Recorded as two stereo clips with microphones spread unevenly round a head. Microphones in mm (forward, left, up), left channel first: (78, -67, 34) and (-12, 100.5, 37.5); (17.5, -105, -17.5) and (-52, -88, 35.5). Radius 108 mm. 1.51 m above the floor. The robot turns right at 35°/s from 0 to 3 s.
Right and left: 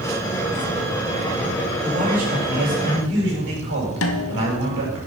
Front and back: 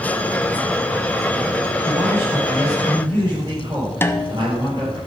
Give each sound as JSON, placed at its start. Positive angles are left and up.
{"t": 1.8, "sound": "a man speaking", "azimuth_deg": 60, "distance_m": 6.0}
{"t": 4.0, "sound": "a snare drum", "azimuth_deg": -90, "distance_m": 0.9}